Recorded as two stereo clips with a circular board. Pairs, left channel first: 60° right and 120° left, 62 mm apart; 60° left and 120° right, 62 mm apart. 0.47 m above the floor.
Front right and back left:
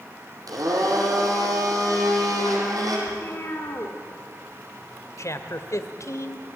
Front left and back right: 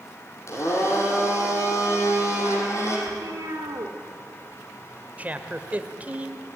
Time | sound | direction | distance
0.5 | a blender | 100° left | 5.5 m
3.1 | a cat meowing | 105° right | 3.5 m
5.2 | a man speaking | 60° right | 2 m